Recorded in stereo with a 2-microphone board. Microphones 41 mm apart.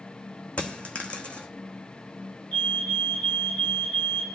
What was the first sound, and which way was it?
A dropped coin, 30° left (ahead or behind).